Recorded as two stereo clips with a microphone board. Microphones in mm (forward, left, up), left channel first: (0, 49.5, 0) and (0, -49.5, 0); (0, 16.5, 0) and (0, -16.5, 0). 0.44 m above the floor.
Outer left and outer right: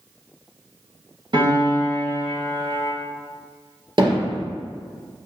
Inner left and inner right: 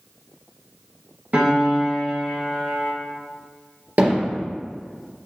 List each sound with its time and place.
1.3 s a piano: 55° right (ahead or behind), 2.5 m
4.0 s hammering: 55° right (ahead or behind), 3 m